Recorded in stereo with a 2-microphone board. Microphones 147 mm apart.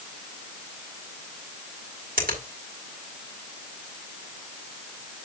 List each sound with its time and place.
2.2 s a finger snap: 80° right, 4 m